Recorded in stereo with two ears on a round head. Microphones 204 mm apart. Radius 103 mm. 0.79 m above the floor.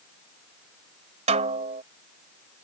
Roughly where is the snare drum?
Right.